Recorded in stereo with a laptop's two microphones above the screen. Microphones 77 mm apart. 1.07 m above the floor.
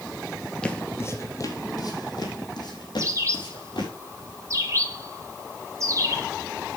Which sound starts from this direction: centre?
Footsteps, at 0.6 s.